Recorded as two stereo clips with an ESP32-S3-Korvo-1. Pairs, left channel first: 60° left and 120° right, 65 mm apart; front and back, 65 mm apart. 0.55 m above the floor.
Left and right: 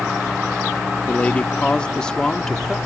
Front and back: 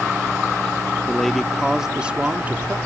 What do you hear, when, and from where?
1.1 s a man speaking: 65° left; by 2.8 s 140° left